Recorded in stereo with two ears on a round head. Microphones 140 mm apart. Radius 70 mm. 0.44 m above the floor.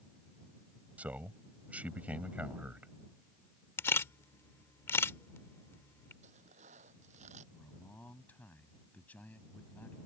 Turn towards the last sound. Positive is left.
turn(degrees=10)  # may be behind; listen again after turning